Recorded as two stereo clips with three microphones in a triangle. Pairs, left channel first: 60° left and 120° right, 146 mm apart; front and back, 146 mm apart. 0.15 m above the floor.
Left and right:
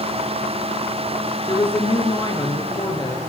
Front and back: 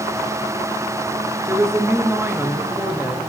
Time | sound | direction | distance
1.5 | a woman speaking | 110° left | 1.9 m